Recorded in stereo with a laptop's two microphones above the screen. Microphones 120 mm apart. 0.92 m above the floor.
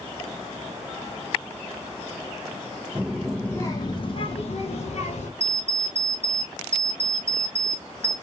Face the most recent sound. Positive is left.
turn(degrees=-65)  # may be behind; listen again after turning